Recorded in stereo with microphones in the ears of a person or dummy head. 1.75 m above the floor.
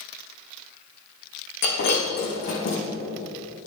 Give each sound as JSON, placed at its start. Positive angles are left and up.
{"t": 1.6, "sound": "breaking glass", "side_deg": 60, "distance_m": 6.0}